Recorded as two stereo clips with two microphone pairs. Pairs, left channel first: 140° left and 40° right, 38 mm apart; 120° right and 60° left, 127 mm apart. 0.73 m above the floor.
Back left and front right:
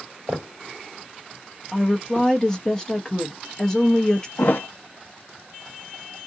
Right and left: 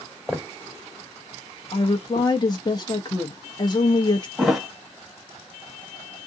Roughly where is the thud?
Behind left.